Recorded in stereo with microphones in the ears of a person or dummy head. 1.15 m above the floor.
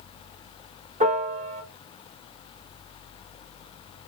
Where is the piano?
35° right (ahead or behind), 0.6 m.